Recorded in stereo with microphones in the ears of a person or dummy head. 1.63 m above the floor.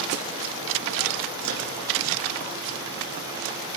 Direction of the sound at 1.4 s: 80° right.